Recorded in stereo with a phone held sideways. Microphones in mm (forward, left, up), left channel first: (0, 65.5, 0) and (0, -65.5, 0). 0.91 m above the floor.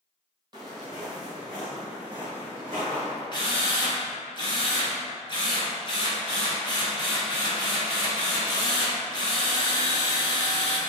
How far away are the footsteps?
About 1.4 m.